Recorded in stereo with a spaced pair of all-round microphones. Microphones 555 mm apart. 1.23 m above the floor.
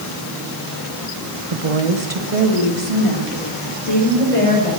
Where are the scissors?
I don't hear scissors.